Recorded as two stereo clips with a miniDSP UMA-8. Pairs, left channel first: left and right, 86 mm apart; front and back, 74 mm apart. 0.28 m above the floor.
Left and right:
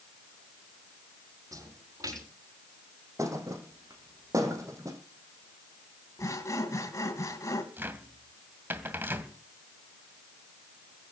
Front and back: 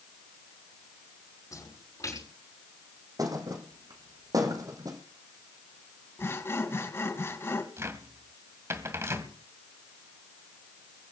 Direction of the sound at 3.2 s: 145° right.